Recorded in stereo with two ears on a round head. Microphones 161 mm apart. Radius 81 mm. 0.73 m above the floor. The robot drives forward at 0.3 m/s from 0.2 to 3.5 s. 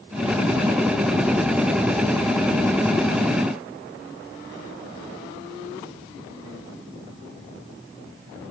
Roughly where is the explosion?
I don't hear an explosion.